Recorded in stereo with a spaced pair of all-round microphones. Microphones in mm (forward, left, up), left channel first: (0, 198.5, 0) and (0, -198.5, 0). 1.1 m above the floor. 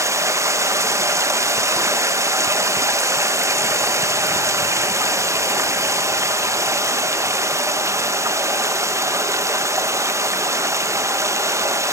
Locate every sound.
0.0 s running water: 10° right (ahead or behind), 0.9 m